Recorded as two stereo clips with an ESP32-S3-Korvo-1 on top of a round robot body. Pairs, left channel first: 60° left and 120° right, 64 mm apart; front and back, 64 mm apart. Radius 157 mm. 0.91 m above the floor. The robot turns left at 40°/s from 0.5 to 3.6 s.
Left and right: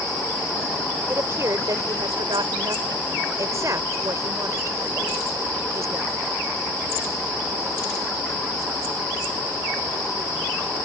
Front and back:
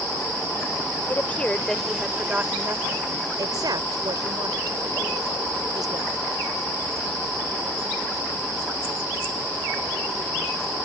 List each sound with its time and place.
1.1 s a woman speaking: 60° right; by 6.1 s 160° right